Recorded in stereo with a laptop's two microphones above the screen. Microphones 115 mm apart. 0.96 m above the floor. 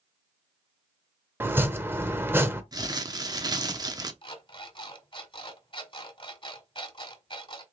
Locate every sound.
1.4 s chopping: 20° right (ahead or behind), 0.7 m
2.7 s crumpling: 35° right (ahead or behind), 0.6 m
4.2 s an alarm clock: 45° left (ahead or behind), 1.5 m